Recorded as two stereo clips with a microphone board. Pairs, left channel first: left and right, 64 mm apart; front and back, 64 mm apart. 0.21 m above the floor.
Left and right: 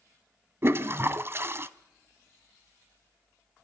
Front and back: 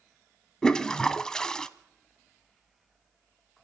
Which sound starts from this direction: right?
A toilet flushing, at 0.6 s.